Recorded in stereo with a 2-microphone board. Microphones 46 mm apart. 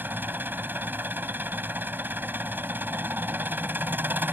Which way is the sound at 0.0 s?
45° right (ahead or behind).